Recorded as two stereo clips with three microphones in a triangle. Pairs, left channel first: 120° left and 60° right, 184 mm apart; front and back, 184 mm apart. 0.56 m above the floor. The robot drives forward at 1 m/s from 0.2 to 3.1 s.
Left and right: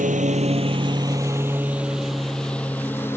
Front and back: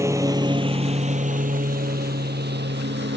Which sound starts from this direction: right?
A lawn mower, at 0.0 s.